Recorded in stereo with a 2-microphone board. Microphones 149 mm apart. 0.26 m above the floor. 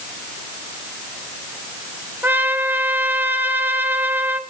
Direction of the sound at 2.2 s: 10° right (ahead or behind).